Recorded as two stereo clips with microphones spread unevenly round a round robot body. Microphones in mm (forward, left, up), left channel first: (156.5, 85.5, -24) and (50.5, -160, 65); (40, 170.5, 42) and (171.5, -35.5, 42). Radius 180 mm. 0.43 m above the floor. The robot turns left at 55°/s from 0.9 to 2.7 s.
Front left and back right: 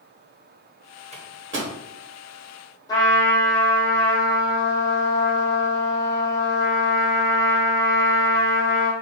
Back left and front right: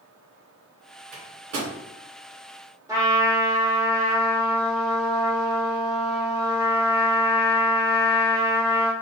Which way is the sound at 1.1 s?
40° right.